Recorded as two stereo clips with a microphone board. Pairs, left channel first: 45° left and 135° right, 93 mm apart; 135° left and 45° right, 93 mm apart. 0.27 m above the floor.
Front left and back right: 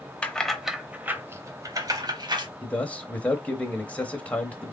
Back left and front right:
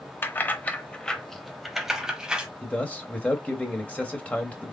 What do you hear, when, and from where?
0.2 s keys jangling: 105° left, 0.8 m; by 2.5 s 125° right, 1.2 m
2.6 s a man speaking: 90° left, 1.0 m